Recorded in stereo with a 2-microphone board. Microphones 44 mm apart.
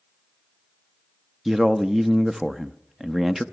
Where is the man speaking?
10° right (ahead or behind), 0.5 m.